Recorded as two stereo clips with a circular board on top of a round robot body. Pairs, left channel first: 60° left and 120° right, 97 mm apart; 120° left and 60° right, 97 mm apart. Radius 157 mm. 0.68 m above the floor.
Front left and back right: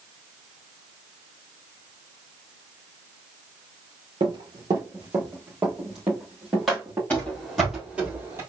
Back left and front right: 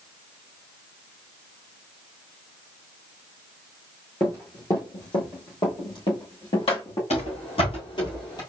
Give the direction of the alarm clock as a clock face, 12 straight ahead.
I don't hear an alarm clock.